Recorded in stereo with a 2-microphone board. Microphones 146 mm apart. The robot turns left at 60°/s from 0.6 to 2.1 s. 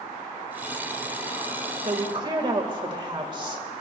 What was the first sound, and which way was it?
A woman speaking, 50° right (ahead or behind).